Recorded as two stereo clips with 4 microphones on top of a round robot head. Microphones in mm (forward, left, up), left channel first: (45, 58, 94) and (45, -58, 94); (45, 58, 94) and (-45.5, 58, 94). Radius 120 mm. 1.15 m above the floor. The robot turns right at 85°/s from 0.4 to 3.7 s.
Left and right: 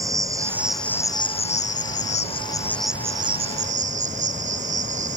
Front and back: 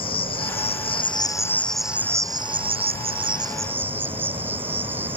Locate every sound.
0.0 s an insect: 30° right; by 5.2 s 110° right